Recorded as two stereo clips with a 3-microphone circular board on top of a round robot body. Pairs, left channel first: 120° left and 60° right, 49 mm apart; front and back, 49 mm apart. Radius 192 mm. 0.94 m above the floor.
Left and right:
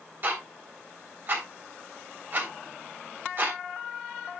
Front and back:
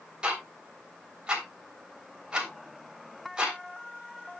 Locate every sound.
0.2 s ticking: 110° right, 3 m